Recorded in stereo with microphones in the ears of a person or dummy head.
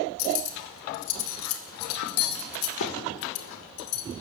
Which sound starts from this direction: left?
Cutlery clinking, at 0.2 s.